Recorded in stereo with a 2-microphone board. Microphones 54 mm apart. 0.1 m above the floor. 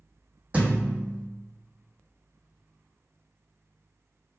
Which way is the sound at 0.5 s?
25° right (ahead or behind).